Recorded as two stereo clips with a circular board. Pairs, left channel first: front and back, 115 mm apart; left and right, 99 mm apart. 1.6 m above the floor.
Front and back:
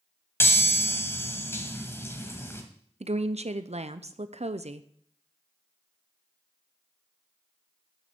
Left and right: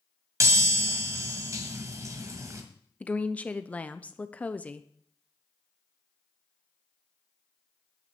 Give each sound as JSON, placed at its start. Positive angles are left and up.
{"t": 0.4, "sound": "a chime", "azimuth_deg": -55, "distance_m": 1.8}
{"t": 3.0, "sound": "a woman speaking", "azimuth_deg": 165, "distance_m": 0.6}